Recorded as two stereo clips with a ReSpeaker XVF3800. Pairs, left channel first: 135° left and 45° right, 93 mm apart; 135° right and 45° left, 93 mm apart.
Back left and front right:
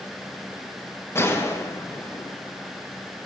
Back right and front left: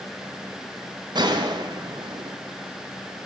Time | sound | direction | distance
1.1 | a gunshot | 75° left | 0.6 m